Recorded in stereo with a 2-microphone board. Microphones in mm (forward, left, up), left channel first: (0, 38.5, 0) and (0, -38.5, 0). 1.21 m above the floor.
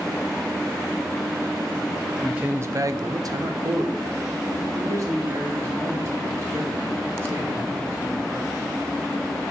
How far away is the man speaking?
About 0.9 m.